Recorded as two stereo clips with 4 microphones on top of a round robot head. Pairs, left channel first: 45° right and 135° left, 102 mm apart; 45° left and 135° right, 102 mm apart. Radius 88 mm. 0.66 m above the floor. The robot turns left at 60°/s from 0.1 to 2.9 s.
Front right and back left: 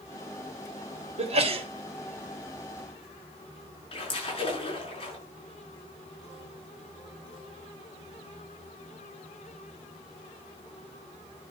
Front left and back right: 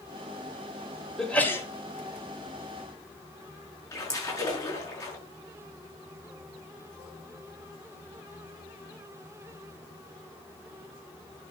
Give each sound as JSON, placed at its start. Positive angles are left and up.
{"t": 1.2, "sound": "a sneeze", "azimuth_deg": 135, "distance_m": 3.0}
{"t": 3.9, "sound": "a splash", "azimuth_deg": -10, "distance_m": 6.5}